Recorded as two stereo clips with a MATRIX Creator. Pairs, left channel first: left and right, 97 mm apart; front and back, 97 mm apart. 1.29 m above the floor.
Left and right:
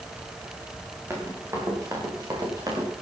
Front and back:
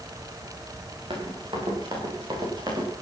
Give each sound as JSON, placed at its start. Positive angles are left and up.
{"t": 1.1, "sound": "running footsteps", "azimuth_deg": -150, "distance_m": 6.5}